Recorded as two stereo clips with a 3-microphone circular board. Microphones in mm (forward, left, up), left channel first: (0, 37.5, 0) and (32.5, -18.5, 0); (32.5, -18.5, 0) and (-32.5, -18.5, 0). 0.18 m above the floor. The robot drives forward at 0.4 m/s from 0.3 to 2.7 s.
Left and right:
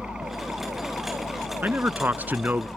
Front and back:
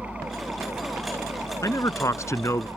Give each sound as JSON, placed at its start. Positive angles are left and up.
{"t": 0.0, "sound": "a helicopter", "azimuth_deg": -125}
{"t": 1.6, "sound": "a man speaking", "azimuth_deg": -5}